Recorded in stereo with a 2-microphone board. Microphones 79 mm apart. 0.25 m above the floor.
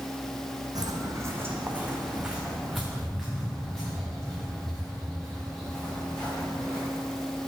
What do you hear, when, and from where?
0.8 s footsteps: 60° right (ahead or behind), 0.9 m; by 6.8 s 15° left (ahead or behind), 4.5 m